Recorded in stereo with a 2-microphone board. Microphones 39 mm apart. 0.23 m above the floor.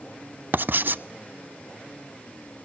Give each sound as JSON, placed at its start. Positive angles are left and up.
{"t": 0.5, "sound": "writing", "side_deg": -55, "distance_m": 0.5}